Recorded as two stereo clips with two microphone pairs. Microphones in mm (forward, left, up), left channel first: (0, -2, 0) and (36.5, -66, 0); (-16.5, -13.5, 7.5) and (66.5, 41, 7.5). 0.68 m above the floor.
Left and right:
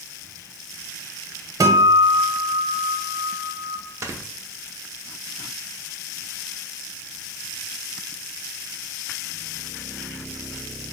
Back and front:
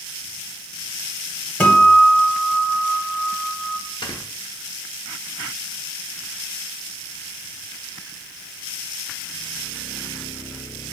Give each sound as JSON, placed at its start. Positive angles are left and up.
{"t": 1.6, "sound": "a guitar", "azimuth_deg": -70, "distance_m": 0.7}
{"t": 4.0, "sound": "snoring", "azimuth_deg": -105, "distance_m": 0.6}